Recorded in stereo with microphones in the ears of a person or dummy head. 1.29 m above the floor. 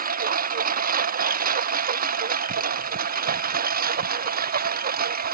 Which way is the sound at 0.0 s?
50° right (ahead or behind).